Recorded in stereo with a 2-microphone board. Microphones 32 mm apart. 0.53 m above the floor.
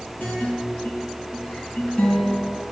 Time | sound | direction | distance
0.2 | a guitar | 60° left (ahead or behind) | 4 m